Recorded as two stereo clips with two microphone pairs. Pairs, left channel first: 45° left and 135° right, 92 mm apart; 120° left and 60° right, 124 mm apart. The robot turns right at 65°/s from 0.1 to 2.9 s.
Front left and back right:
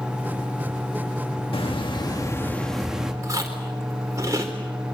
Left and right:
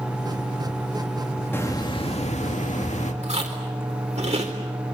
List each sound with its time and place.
1.5 s a hiss: 50° left, 2 m; by 3.1 s 140° left, 2 m
3.2 s chewing: 80° right, 4 m